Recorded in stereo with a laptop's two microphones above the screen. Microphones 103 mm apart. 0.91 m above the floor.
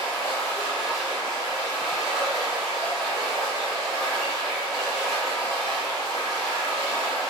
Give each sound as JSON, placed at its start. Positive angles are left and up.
{"t": 0.0, "sound": "running water", "side_deg": 0, "distance_m": 0.9}